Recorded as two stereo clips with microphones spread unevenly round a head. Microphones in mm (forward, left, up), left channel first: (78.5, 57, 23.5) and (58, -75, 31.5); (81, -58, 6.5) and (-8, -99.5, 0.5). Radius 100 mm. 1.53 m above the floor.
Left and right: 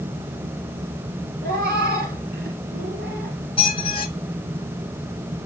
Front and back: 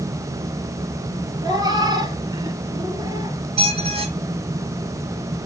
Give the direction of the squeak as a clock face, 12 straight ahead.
7 o'clock.